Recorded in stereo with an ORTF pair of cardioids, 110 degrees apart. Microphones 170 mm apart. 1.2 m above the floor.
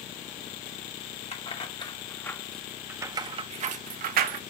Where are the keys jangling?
35° left, 1.5 m; by 4.4 s 65° right, 1.3 m.